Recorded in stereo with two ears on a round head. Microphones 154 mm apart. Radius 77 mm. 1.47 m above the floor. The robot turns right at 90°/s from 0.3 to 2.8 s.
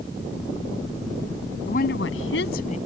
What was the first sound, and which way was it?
A woman speaking, 40° left.